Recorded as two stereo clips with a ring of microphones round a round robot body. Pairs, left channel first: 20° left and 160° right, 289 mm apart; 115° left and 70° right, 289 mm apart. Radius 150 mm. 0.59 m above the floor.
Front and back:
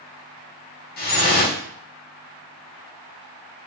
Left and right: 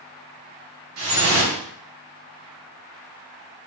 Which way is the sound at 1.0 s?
35° right.